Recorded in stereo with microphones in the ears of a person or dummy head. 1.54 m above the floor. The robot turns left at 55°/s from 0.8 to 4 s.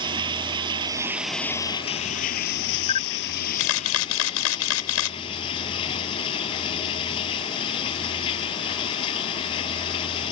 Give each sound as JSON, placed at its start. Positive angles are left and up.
{"t": 0.0, "sound": "running water", "azimuth_deg": -150}
{"t": 2.9, "sound": "a camera shutter", "azimuth_deg": 145}